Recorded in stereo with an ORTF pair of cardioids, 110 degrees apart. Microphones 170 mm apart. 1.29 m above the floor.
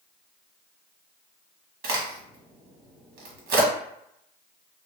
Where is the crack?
65° right, 1.3 m.